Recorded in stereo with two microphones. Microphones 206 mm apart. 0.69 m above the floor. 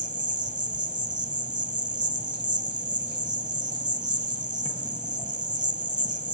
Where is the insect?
35° right (ahead or behind), 1.8 m.